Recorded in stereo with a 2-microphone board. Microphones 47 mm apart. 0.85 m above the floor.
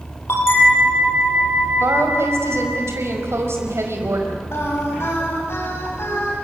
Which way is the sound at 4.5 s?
60° left (ahead or behind).